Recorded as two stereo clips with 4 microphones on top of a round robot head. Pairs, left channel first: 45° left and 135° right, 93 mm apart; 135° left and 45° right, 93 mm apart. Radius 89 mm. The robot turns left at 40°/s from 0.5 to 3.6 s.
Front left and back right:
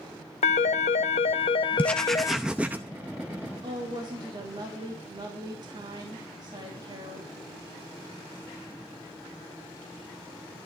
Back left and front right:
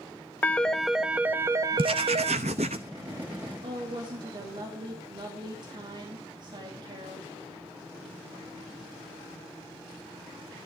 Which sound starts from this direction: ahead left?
A phone ringing, at 0.4 s.